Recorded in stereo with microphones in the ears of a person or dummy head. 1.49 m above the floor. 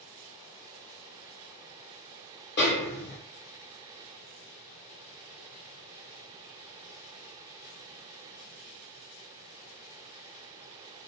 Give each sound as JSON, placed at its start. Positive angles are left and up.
{"t": 2.6, "sound": "a snare drum", "side_deg": 50, "distance_m": 0.8}